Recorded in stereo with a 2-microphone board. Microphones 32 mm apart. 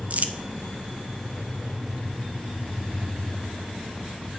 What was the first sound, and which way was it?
Crumpling, 55° right (ahead or behind).